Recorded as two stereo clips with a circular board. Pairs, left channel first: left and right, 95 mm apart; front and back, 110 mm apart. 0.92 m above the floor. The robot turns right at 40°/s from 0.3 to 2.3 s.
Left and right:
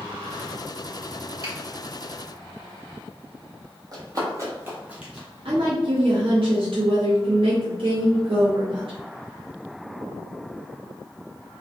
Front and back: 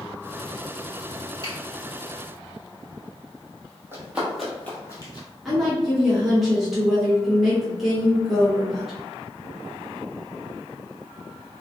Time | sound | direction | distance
1.4 | a finger snap | 135° right | 1.6 m
3.9 | running footsteps | 120° right | 1.3 m
5.5 | a woman speaking | 90° right | 0.8 m